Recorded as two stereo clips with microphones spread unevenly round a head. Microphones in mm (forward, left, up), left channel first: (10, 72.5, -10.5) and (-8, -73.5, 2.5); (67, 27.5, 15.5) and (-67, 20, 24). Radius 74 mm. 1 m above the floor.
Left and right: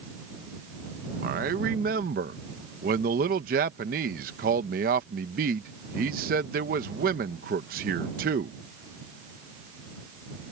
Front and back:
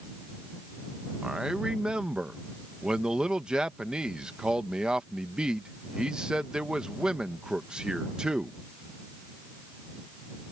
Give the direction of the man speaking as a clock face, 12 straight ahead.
3 o'clock.